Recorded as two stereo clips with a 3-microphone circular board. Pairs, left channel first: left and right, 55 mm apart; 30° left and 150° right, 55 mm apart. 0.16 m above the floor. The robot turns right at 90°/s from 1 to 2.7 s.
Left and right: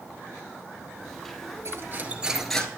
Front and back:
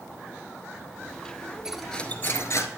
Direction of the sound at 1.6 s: 70° right.